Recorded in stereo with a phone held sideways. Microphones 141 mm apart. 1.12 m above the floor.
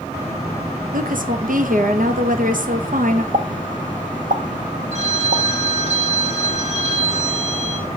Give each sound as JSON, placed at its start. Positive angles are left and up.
{"t": 0.9, "sound": "a woman speaking", "side_deg": -70, "distance_m": 1.3}
{"t": 3.3, "sound": "a pop", "side_deg": -70, "distance_m": 0.8}
{"t": 4.9, "sound": "a phone ringing", "side_deg": -50, "distance_m": 1.9}